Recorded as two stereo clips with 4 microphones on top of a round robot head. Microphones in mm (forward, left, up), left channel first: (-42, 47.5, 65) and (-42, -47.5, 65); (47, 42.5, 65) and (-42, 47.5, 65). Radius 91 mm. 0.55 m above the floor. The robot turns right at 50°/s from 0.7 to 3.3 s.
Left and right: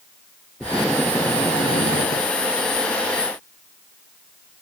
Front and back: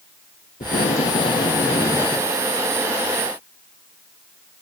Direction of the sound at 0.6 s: 10° right.